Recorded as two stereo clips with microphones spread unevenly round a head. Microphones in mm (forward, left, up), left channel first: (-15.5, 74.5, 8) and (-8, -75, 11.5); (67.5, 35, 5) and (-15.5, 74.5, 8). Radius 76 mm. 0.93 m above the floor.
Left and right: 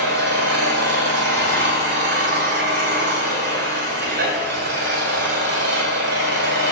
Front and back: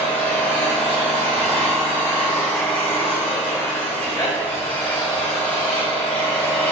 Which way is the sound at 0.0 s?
105° right.